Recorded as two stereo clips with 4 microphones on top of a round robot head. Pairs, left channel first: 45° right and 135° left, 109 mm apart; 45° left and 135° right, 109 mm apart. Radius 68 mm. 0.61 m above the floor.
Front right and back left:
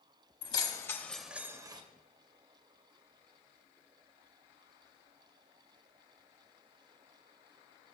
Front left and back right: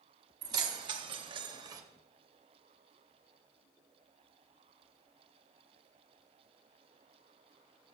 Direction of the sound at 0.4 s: 85° right.